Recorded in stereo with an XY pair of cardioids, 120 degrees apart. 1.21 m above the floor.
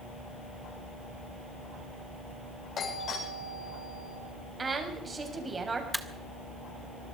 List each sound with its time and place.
2.8 s a doorbell: 50° left, 8 m
4.6 s a woman speaking: 25° right, 7 m
5.9 s a camera shutter: straight ahead, 1.9 m